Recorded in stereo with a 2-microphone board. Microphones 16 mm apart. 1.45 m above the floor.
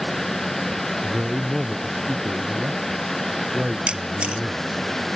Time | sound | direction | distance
1.0 | a man speaking | 50° right (ahead or behind) | ?
3.9 | a camera shutter | 75° right (ahead or behind) | ?